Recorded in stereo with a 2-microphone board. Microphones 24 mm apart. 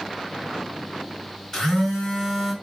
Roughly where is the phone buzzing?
Centre.